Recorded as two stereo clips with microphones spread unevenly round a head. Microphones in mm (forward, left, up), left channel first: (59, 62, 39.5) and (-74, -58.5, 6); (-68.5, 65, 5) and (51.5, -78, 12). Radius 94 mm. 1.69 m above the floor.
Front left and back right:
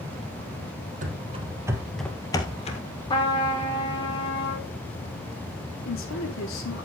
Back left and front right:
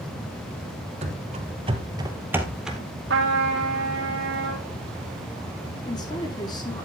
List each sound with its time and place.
1.0 s running footsteps: 90° right, 2.5 m; by 2.8 s 35° left, 2 m
3.1 s a trumpet: 20° right, 4 m
5.8 s a woman speaking: 60° left, 5 m